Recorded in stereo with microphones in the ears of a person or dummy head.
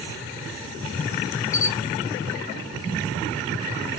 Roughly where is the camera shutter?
Left.